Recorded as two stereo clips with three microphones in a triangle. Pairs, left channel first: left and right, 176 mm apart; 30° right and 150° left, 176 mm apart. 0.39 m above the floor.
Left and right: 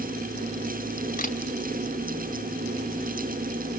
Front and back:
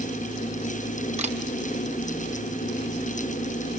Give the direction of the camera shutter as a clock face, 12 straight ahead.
8 o'clock.